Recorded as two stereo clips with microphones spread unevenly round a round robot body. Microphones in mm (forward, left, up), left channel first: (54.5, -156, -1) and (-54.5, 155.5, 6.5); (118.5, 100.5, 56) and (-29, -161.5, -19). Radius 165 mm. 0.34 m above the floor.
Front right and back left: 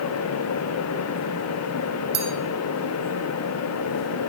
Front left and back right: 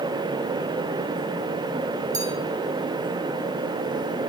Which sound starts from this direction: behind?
A bell, at 2.1 s.